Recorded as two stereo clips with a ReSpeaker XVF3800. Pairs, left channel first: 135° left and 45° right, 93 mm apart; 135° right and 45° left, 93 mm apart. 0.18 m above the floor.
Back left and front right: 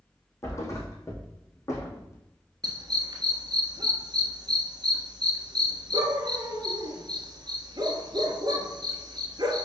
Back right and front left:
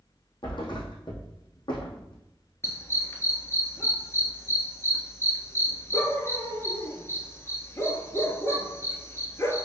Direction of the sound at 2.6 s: 80° right.